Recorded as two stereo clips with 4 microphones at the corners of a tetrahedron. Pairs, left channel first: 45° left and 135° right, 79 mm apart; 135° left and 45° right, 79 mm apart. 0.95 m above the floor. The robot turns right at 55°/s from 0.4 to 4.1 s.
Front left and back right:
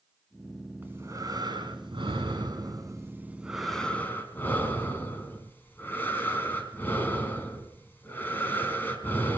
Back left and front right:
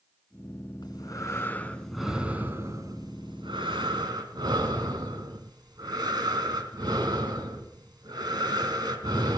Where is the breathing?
160° left, 3.5 m; by 9.4 s 20° right, 3.5 m.